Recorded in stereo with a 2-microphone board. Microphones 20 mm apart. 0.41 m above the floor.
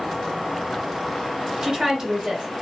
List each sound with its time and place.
1.6 s a woman speaking: 35° right (ahead or behind), 1.1 m